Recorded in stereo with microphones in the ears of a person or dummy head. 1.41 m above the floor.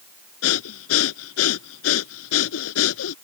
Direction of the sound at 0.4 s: 80° left.